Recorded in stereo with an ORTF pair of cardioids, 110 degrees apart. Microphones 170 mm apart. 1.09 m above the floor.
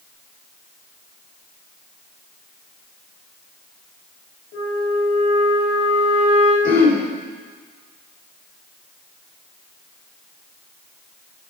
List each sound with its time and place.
4.5 s a flute: 70° left, 6 m
6.6 s throat clearing: 60° left, 4 m